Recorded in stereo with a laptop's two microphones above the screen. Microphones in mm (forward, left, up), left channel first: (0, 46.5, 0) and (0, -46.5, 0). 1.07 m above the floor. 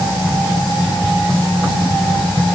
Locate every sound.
Only background noise.